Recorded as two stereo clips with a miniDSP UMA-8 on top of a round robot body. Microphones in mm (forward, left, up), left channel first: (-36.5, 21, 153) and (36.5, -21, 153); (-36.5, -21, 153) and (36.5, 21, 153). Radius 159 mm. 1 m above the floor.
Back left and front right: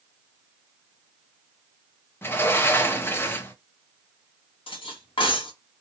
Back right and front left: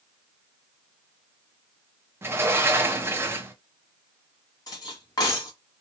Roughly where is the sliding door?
Left.